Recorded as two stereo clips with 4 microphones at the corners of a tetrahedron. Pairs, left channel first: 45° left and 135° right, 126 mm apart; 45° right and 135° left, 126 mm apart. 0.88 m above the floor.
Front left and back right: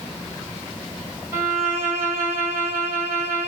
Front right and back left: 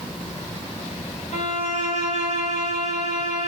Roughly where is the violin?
Right.